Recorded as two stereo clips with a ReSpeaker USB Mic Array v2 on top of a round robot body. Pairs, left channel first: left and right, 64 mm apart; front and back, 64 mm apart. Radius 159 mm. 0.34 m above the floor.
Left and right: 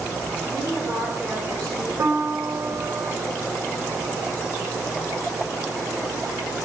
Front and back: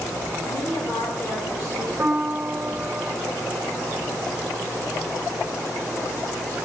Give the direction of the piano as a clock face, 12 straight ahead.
4 o'clock.